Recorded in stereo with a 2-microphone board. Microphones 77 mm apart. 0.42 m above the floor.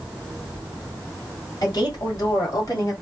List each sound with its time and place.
1.6 s a woman speaking: 60° left (ahead or behind), 1.8 m; by 2.9 s 45° left (ahead or behind), 2.0 m